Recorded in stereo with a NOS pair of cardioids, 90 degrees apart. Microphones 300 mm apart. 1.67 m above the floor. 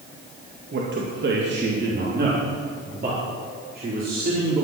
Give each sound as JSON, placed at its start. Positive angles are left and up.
{"t": 0.7, "sound": "a man speaking", "azimuth_deg": -40, "distance_m": 2.0}